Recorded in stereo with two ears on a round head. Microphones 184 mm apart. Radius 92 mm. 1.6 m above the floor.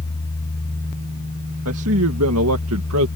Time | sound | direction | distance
1.6 | a man speaking | 85° right | ?